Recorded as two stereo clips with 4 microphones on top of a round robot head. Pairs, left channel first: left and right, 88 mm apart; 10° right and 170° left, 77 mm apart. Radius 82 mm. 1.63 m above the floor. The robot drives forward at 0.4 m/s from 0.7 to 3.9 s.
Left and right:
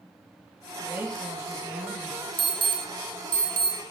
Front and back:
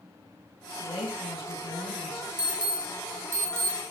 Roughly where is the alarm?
Right.